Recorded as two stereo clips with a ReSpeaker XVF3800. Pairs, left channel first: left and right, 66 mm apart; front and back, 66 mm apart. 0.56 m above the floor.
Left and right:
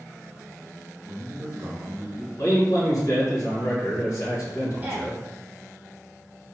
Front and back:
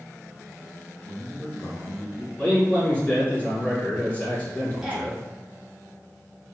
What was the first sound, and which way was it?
A man speaking, 10° right.